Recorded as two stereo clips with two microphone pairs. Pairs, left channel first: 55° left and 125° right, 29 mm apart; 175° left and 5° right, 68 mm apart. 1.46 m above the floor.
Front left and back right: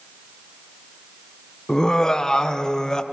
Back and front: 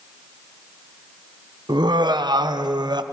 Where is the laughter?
15° right, 0.8 m.